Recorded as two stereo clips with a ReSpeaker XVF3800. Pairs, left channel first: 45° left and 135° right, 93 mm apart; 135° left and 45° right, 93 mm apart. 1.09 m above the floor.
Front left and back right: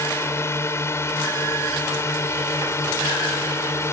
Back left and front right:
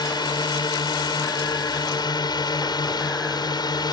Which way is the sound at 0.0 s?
105° left.